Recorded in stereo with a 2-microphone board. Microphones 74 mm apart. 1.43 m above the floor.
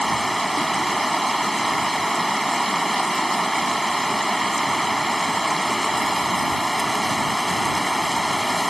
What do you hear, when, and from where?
0.0 s running water: centre (ahead or behind)